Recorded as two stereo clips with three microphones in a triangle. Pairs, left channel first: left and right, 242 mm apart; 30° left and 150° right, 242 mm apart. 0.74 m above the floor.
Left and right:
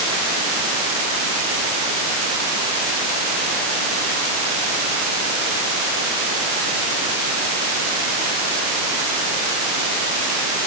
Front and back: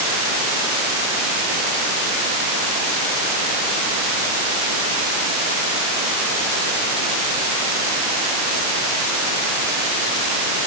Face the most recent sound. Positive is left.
No sound to turn to.